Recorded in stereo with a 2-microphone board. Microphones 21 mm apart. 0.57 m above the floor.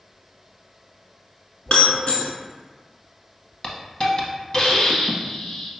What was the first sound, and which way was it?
Breaking glass, 60° left (ahead or behind).